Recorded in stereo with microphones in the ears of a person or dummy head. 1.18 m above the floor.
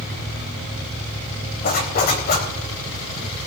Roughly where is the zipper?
Left.